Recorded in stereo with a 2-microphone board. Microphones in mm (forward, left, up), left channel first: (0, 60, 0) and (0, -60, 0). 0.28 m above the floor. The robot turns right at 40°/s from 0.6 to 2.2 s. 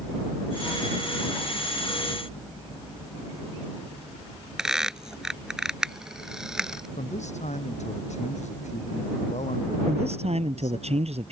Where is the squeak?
5° right (ahead or behind).